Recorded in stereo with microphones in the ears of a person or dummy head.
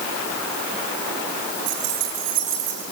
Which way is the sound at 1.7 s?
65° right (ahead or behind).